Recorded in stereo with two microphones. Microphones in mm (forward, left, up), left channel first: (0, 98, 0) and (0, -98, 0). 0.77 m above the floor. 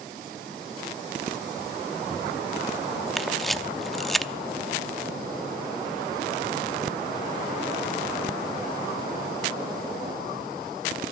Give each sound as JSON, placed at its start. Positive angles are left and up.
{"t": 3.2, "sound": "a camera shutter", "side_deg": 0, "distance_m": 0.6}